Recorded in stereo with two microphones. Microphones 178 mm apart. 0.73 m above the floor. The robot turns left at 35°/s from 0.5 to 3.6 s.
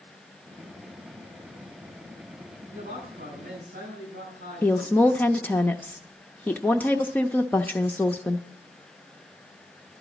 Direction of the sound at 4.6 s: 10° left (ahead or behind).